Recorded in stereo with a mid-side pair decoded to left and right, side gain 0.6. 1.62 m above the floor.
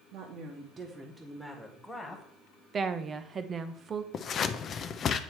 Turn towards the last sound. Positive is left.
turn(degrees=40)